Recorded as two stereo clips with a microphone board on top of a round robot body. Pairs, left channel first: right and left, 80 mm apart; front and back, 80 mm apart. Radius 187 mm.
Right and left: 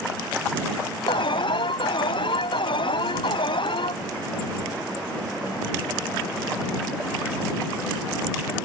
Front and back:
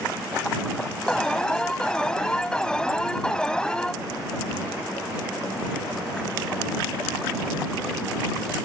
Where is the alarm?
80° right.